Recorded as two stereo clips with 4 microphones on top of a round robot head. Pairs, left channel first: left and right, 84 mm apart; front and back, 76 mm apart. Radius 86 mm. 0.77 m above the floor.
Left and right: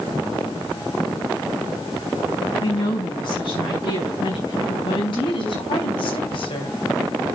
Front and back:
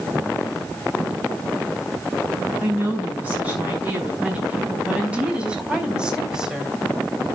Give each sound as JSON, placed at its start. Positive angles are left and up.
{"t": 2.6, "sound": "a woman speaking", "azimuth_deg": 110, "distance_m": 7.0}